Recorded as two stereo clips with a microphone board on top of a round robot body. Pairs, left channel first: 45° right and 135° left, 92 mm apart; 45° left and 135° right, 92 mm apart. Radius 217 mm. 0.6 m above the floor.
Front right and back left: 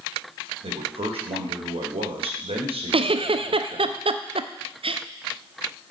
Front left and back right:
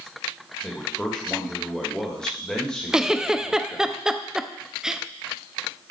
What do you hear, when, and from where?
0.6 s a man speaking: 125° left, 2.5 m
2.9 s a giggle: 140° left, 0.7 m